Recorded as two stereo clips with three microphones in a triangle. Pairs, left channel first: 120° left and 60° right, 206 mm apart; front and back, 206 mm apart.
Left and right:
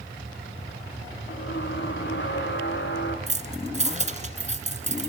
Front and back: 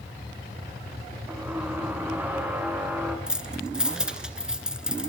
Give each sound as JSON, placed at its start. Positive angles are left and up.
{"t": 1.3, "sound": "a squeak", "azimuth_deg": 100, "distance_m": 4.0}
{"t": 3.3, "sound": "keys jangling", "azimuth_deg": -95, "distance_m": 1.4}